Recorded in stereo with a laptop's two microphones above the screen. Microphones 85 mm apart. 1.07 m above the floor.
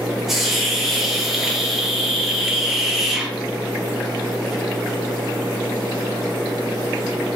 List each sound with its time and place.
0.3 s a hiss: 5° right (ahead or behind), 0.5 m